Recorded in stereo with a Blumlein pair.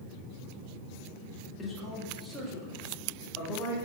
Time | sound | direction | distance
1.6 | a man speaking | 15° left | 1.5 m